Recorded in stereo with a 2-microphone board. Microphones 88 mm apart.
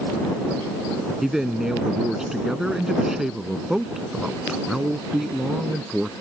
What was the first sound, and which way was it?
A man speaking, 5° right (ahead or behind).